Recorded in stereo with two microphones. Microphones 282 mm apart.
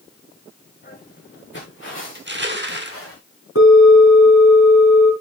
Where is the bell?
65° left (ahead or behind), 3.5 m.